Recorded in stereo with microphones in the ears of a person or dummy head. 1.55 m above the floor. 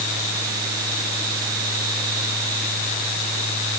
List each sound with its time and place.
Only background noise.